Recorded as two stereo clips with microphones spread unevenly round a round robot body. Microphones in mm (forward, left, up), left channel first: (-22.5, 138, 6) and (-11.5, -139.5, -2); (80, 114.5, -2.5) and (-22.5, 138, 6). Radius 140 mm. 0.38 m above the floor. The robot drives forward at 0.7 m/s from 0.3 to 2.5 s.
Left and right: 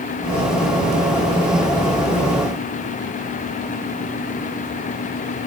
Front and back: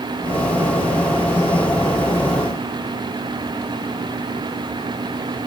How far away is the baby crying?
No baby crying in this recording.